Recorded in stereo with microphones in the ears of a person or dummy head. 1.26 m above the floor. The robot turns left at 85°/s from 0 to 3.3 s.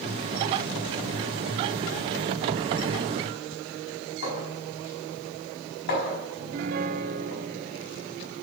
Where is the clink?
55° left (ahead or behind), 4.5 m.